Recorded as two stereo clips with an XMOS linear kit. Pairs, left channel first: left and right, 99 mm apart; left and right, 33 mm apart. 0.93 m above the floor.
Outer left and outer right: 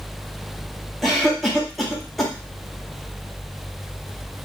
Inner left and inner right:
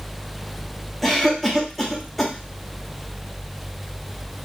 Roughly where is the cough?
Centre.